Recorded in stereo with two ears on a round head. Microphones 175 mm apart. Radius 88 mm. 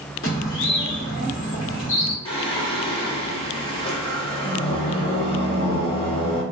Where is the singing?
25° left (ahead or behind), 0.8 m.